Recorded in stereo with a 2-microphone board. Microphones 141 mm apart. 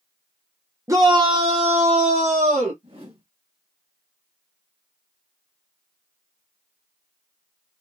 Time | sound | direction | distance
0.9 | a shout | 20° right (ahead or behind) | 0.7 m
2.8 | a whoosh | 40° right (ahead or behind) | 2 m